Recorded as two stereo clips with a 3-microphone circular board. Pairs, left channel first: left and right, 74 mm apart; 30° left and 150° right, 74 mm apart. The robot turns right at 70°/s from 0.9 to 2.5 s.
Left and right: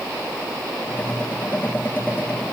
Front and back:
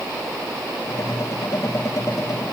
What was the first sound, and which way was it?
Only background noise.